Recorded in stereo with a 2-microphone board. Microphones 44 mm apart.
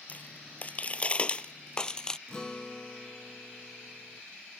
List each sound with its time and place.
0.1 s footsteps: 40° left (ahead or behind); by 2.2 s 15° left (ahead or behind)
2.3 s a guitar: 20° left (ahead or behind)